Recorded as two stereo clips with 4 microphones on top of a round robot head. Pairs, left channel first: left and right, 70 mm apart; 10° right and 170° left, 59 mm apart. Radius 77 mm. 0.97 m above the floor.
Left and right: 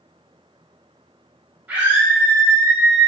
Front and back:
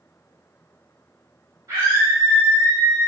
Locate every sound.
1.7 s a scream: 155° right, 6 m